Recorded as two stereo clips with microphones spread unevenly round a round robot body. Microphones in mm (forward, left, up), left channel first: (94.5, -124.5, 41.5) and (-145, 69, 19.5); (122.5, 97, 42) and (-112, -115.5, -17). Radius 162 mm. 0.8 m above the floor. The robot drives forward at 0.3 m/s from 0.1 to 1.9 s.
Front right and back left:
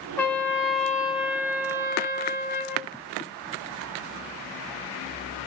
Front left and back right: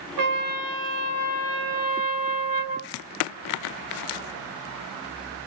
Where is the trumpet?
120° right, 1.2 m; by 2.9 s 140° right, 1.6 m.